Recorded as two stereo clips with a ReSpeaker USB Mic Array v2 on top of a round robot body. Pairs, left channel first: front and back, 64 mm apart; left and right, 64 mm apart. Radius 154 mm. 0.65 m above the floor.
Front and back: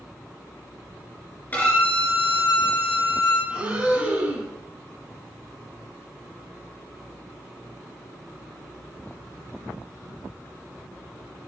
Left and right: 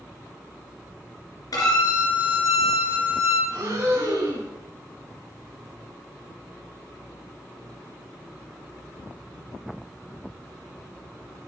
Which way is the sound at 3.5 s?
110° right.